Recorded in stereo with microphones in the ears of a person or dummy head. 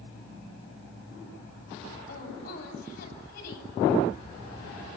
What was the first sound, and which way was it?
A woman speaking, 60° left (ahead or behind).